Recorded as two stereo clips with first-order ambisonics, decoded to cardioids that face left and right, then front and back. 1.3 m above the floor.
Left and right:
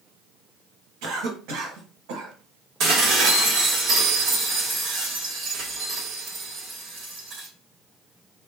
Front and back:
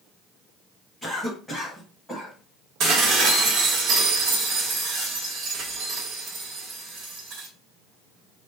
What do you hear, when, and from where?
1.0 s a cough: 90° right, 1.3 m
2.8 s dishes clattering: 135° right, 1.1 m